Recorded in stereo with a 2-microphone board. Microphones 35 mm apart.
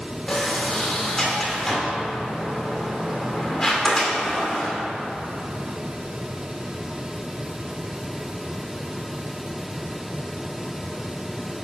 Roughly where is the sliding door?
Centre.